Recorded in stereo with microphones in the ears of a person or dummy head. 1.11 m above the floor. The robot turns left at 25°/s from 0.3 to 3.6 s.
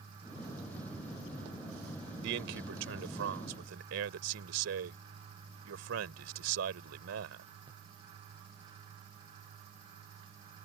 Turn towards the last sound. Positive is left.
turn(degrees=-100)